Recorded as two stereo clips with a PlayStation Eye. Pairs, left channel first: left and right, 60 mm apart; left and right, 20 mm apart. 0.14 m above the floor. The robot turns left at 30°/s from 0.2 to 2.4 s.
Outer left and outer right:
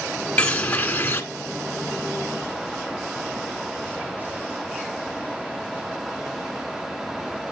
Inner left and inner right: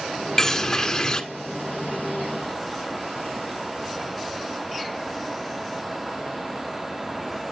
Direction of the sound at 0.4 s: 20° left (ahead or behind).